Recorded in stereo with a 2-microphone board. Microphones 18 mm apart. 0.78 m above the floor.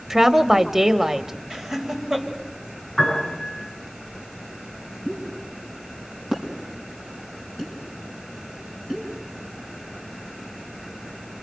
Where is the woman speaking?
20° right (ahead or behind), 1.1 m.